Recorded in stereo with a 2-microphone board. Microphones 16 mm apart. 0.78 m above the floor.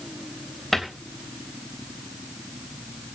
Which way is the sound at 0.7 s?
15° left (ahead or behind).